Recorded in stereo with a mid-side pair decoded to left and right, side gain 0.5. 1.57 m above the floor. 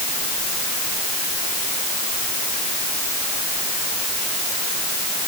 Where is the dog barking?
I don't hear a dog barking.